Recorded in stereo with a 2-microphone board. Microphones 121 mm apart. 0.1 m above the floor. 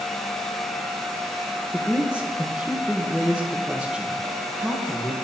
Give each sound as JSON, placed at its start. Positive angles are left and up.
{"t": 1.7, "sound": "a man speaking", "side_deg": -10, "distance_m": 3.5}